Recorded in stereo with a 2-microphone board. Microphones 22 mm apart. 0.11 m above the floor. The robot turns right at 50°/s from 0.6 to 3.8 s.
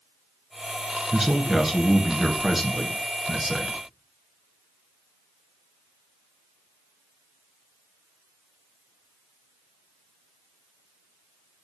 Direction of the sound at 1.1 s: 20° right (ahead or behind).